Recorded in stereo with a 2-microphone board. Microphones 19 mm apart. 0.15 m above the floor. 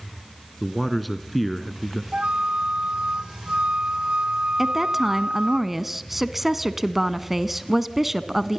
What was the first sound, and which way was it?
A man speaking, centre (ahead or behind).